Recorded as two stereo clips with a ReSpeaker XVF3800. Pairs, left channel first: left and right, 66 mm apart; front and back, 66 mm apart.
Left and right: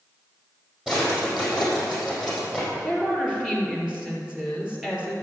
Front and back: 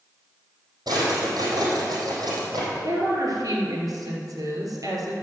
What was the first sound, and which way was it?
A drawer, 170° right.